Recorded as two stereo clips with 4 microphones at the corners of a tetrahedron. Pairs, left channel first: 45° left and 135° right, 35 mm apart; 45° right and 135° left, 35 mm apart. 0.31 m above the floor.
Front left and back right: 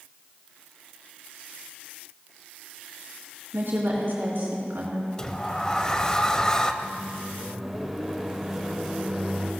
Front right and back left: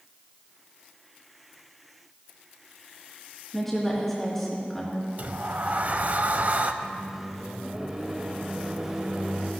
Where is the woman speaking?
130° right, 4 m.